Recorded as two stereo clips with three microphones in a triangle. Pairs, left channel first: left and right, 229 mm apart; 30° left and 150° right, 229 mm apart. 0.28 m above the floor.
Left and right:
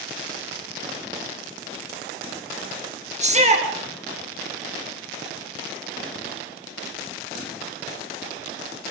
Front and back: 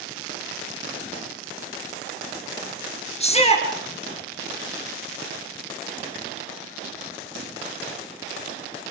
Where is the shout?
30° right, 4.5 m.